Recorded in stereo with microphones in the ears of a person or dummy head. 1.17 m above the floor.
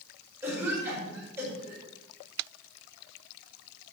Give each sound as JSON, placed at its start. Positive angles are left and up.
{"t": 0.4, "sound": "a cough", "side_deg": -10, "distance_m": 5.0}